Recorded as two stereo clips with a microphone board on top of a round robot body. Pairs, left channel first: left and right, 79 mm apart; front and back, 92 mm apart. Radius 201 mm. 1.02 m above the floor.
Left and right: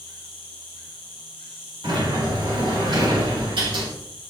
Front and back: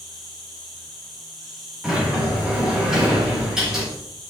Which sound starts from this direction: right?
A sliding door, at 1.8 s.